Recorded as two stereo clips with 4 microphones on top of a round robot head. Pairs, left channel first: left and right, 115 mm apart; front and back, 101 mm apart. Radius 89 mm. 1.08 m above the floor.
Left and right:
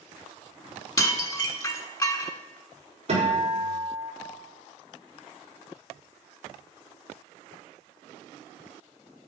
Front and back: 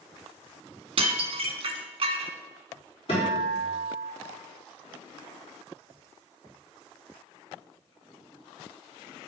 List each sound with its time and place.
1.0 s dishes clattering: 150° left, 1.1 m
3.1 s a guitar: 45° right, 4 m